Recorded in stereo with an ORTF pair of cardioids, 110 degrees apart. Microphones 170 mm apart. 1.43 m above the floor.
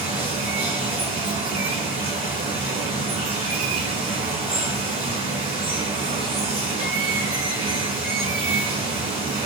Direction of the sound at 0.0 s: 30° right.